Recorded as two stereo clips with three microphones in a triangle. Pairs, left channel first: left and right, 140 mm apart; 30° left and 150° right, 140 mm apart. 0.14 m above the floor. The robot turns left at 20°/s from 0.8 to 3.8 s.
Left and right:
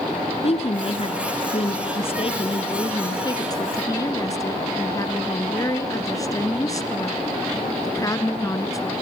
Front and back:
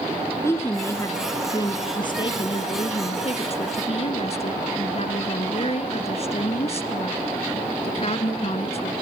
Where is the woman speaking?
95° left, 1.5 m; by 8.9 s 35° left, 1.5 m.